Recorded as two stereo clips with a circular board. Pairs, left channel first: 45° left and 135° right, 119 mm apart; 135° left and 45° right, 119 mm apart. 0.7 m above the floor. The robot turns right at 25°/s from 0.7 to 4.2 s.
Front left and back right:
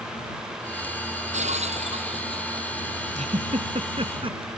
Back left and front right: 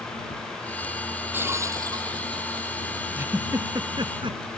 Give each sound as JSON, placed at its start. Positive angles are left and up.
{"t": 1.3, "sound": "breaking glass", "azimuth_deg": -115}
{"t": 3.1, "sound": "a giggle", "azimuth_deg": -115}